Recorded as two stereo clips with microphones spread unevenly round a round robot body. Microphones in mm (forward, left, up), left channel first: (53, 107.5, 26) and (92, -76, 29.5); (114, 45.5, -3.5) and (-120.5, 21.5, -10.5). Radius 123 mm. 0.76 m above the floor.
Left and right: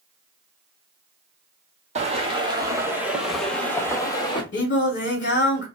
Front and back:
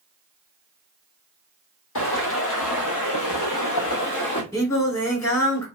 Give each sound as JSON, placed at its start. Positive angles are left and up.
{"t": 1.9, "sound": "footsteps", "azimuth_deg": -25, "distance_m": 1.5}
{"t": 4.5, "sound": "singing", "azimuth_deg": 85, "distance_m": 1.8}